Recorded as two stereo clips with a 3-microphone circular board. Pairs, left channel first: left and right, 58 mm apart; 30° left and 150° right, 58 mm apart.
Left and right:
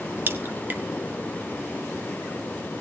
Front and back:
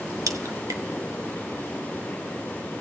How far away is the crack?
About 1.3 m.